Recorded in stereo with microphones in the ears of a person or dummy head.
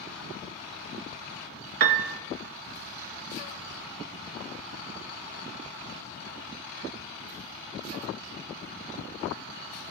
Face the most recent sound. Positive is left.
turn(degrees=-50)  # may be behind; listen again after turning